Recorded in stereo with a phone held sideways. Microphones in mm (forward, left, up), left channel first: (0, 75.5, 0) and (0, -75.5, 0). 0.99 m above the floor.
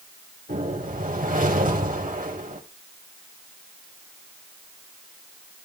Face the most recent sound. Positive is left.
turn(degrees=-60)  # may be behind; listen again after turning